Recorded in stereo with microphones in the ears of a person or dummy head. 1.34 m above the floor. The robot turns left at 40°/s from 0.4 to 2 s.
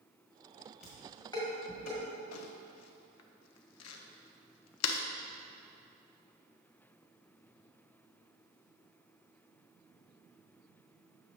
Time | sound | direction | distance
0.8 | dishes clattering | 5° right (ahead or behind) | 1.7 m
2.3 | crumpling | 80° left | 0.5 m